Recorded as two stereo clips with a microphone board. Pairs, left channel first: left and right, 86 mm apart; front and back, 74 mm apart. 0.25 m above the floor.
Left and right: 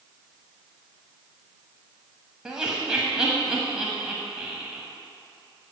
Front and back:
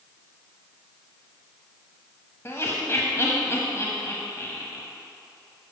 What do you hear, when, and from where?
2.5 s laughter: 15° right, 1.1 m